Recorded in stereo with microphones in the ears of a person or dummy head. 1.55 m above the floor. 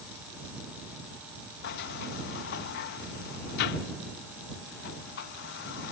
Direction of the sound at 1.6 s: 65° left (ahead or behind).